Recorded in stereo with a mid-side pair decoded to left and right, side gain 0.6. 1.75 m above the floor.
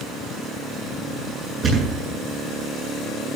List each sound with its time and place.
1.6 s a thud: 40° right, 8.5 m